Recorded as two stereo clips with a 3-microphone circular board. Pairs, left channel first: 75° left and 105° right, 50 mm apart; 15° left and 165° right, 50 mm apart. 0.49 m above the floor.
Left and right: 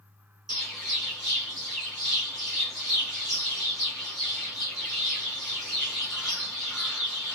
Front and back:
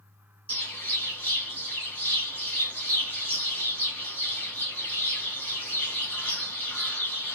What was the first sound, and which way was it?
A bird, 30° right.